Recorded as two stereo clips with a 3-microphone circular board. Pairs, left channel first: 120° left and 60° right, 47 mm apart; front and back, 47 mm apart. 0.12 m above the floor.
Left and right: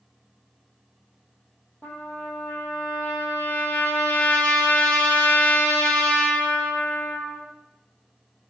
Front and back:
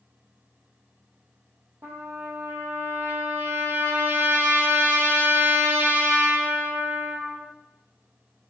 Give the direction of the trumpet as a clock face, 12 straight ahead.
6 o'clock.